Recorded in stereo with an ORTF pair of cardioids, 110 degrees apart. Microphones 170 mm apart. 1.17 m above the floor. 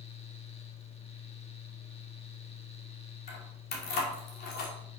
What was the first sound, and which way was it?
A fan, 35° left.